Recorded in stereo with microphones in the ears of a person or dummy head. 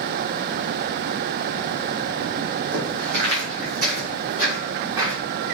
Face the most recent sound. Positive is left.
turn(degrees=-25)  # may be behind; listen again after turning